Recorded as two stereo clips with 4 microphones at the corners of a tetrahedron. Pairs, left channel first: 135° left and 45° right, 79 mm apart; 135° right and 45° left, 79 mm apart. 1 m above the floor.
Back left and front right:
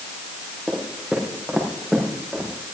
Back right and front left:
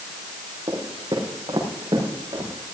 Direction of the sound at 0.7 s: 35° left.